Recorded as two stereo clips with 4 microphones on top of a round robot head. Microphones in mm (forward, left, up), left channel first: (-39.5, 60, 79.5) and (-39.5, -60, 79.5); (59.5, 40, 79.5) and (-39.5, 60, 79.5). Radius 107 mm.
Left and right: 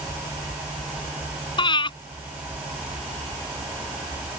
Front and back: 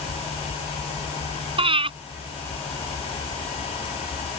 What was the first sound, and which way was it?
Breathing, 140° left.